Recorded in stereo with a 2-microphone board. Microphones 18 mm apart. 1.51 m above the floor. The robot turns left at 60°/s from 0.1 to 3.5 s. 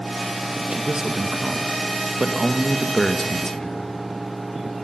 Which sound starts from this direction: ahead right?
A man speaking, at 0.7 s.